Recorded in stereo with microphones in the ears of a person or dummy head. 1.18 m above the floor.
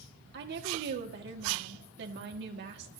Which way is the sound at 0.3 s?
60° right (ahead or behind).